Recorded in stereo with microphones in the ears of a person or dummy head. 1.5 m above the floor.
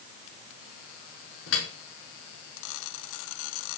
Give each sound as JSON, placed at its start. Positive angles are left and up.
{"t": 1.5, "sound": "dripping", "side_deg": 70, "distance_m": 4.5}